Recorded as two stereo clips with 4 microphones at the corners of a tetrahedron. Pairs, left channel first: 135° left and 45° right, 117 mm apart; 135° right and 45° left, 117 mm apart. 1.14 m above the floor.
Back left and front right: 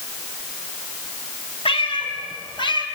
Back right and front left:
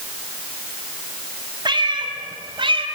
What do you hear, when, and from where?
1.6 s a cat meowing: 95° left, 3.5 m; by 2.9 s 85° left, 3.5 m